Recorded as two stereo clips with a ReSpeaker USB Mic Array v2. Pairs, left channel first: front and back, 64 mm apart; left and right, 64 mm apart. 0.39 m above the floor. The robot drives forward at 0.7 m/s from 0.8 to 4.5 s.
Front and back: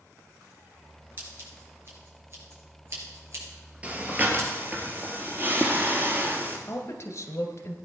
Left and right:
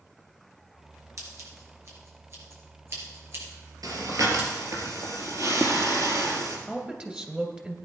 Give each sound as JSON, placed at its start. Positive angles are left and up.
{"t": 1.2, "sound": "scissors", "azimuth_deg": -125, "distance_m": 4.5}
{"t": 3.8, "sound": "breathing", "azimuth_deg": -110, "distance_m": 2.0}
{"t": 6.7, "sound": "a woman speaking", "azimuth_deg": -20, "distance_m": 1.9}